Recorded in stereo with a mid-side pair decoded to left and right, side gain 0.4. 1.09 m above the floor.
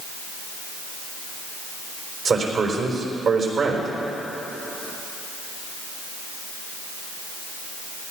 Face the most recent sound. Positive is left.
turn(degrees=-60)